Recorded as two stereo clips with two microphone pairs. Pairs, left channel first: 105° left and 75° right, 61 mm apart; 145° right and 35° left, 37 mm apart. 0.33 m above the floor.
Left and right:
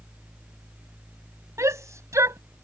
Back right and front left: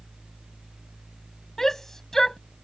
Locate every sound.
1.6 s a shout: 65° right